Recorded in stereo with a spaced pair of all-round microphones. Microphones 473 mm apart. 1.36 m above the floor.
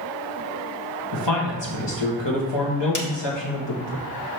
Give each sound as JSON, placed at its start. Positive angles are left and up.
{"t": 1.1, "sound": "a man speaking", "side_deg": 60, "distance_m": 1.5}
{"t": 3.0, "sound": "a snare drum", "side_deg": 40, "distance_m": 0.9}